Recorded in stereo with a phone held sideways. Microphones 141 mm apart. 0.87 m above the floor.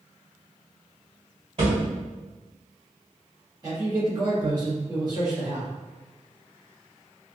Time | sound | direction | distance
1.6 | a thud | 50° right (ahead or behind) | 1.6 m
3.6 | a man speaking | 30° right (ahead or behind) | 1.4 m